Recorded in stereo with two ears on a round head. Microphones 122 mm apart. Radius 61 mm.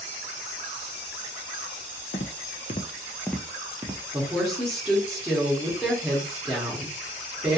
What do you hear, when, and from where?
2.1 s footsteps: 60° left (ahead or behind), 0.8 m; by 4.0 s 20° right (ahead or behind), 0.8 m
4.1 s a woman speaking: centre (ahead or behind), 0.9 m